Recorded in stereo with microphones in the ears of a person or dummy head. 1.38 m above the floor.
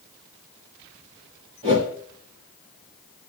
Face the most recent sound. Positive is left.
turn(degrees=-30)  # may be behind; listen again after turning